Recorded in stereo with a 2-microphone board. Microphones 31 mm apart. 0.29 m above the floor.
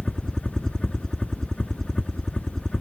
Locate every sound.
0.0 s a helicopter: 20° left (ahead or behind); by 2.8 s 15° left (ahead or behind)